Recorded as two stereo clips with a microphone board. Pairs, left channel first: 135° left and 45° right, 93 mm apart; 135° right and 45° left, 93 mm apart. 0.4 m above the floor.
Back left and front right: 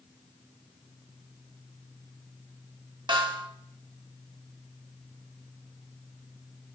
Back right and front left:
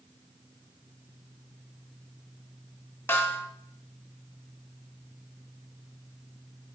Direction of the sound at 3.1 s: 70° right.